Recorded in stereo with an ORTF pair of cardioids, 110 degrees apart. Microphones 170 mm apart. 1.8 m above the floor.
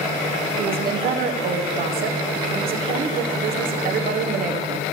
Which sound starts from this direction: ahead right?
A woman speaking, at 0.6 s.